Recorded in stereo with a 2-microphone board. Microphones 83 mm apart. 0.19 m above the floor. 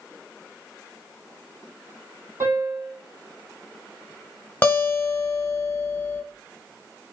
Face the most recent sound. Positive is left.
turn(degrees=25)  # may be behind; listen again after turning